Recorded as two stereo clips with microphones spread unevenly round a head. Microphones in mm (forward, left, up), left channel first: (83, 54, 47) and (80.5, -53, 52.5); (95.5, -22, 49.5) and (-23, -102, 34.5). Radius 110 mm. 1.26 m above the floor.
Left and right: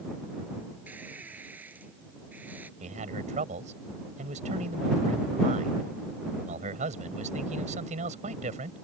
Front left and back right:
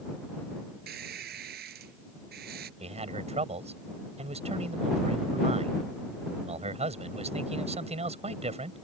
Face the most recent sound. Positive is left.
turn(degrees=-105)